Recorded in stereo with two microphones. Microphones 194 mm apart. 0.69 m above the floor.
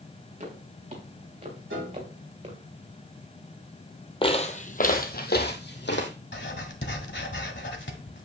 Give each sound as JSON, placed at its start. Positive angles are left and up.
{"t": 0.4, "sound": "footsteps", "side_deg": -40, "distance_m": 4.5}
{"t": 1.7, "sound": "a piano", "side_deg": -75, "distance_m": 7.0}
{"t": 4.2, "sound": "footsteps", "side_deg": 30, "distance_m": 1.2}
{"t": 6.3, "sound": "writing", "side_deg": 70, "distance_m": 1.5}